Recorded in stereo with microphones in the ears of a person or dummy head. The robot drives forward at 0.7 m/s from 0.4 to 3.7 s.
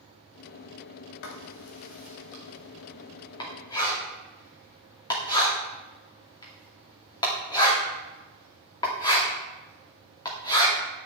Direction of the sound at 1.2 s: 55° left (ahead or behind).